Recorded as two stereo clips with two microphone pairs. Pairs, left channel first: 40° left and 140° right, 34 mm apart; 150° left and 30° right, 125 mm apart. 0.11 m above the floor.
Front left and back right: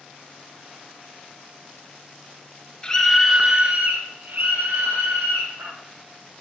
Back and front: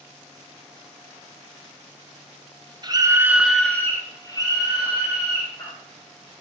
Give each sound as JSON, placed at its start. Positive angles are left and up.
{"t": 2.8, "sound": "a scream", "azimuth_deg": -10, "distance_m": 1.3}